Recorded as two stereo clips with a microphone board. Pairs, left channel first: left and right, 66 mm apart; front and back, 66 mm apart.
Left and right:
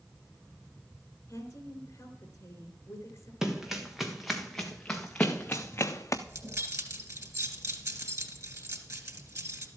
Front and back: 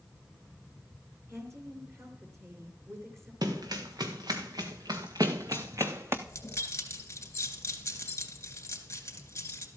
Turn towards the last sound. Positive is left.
turn(degrees=-50)